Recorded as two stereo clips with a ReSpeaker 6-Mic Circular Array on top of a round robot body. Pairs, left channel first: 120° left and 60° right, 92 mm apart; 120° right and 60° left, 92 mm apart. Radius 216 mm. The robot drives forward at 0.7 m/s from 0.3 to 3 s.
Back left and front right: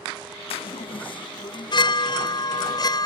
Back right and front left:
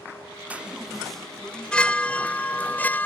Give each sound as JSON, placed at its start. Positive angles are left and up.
{"t": 0.5, "sound": "a chime", "azimuth_deg": 135}